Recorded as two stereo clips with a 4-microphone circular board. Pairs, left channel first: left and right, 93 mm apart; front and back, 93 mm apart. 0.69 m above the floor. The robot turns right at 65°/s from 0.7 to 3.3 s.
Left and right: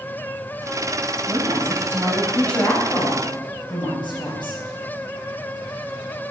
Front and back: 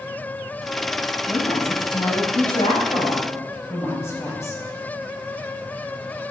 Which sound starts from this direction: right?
A woman speaking, at 1.3 s.